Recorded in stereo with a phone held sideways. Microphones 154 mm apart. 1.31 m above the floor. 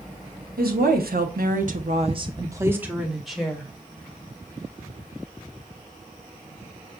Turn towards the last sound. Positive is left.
turn(degrees=5)  # may be behind; listen again after turning